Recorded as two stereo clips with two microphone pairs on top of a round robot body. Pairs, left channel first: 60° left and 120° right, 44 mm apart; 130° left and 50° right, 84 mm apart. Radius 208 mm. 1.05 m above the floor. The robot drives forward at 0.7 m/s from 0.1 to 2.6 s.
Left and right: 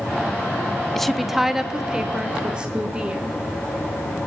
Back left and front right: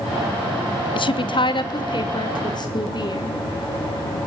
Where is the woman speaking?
145° left, 0.6 m; by 3.4 s 170° left, 1.6 m.